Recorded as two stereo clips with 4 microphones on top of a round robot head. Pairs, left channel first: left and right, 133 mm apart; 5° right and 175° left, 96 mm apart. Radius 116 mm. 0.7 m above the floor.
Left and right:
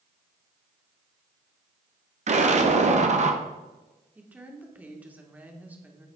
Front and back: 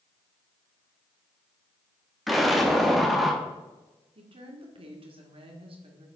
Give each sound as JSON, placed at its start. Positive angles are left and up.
{"t": 2.3, "sound": "an explosion", "azimuth_deg": -95, "distance_m": 1.5}
{"t": 4.2, "sound": "a woman speaking", "azimuth_deg": -170, "distance_m": 2.0}